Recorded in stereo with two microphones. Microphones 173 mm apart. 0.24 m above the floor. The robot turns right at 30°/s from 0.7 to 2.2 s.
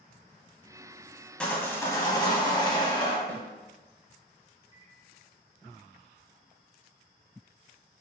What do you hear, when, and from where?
1.4 s sawing: 5° left (ahead or behind), 0.5 m; by 3.2 s 25° left (ahead or behind), 0.5 m
3.3 s a snare drum: 10° left (ahead or behind), 0.6 m
4.7 s a microwave: 20° right (ahead or behind), 0.7 m